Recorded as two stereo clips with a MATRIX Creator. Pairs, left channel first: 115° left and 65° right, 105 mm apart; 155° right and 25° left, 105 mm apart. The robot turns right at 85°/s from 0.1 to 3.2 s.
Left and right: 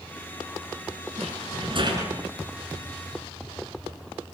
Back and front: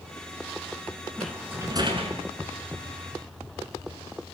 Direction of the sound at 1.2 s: 80° right.